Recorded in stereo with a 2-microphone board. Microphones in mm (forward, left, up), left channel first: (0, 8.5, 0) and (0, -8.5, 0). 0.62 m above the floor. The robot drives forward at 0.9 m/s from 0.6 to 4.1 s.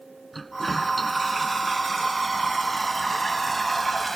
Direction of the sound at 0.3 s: 5° left (ahead or behind).